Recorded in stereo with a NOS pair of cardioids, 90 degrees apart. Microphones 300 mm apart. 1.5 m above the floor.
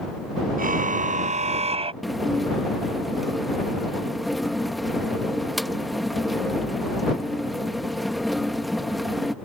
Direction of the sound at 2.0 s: Straight ahead.